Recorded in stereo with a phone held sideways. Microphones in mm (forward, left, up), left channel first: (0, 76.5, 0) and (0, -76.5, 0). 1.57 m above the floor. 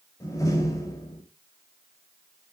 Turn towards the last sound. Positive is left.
turn(degrees=20)  # may be behind; listen again after turning